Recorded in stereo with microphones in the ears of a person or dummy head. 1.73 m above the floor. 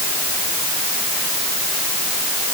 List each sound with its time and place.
Only background noise.